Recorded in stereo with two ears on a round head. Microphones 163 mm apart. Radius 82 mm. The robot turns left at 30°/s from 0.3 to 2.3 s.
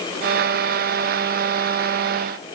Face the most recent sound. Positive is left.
No sound to turn to.